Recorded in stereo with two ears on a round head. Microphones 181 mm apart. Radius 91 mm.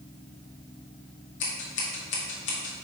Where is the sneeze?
I don't hear a sneeze.